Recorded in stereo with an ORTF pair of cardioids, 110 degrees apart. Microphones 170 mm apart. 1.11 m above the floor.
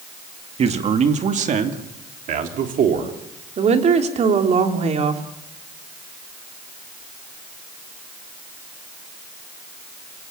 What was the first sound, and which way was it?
A man speaking, 40° right.